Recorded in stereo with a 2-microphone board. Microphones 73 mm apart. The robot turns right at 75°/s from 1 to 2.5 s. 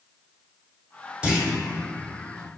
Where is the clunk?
10° right (ahead or behind), 0.8 m; by 1.5 s 5° left (ahead or behind), 0.8 m.